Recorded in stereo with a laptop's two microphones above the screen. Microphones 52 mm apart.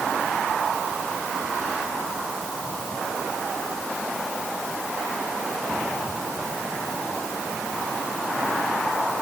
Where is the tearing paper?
I don't hear tearing paper.